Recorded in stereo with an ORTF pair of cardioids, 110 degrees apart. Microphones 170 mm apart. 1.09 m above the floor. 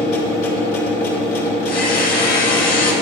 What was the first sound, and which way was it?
A machine running, 55° left.